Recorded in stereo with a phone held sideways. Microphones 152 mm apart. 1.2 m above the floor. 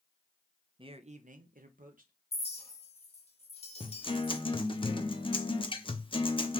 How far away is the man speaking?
About 0.6 m.